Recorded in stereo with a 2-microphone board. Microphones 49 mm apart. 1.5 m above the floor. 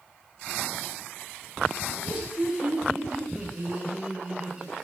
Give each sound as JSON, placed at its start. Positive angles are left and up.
{"t": 1.9, "sound": "laughter", "side_deg": -25, "distance_m": 8.0}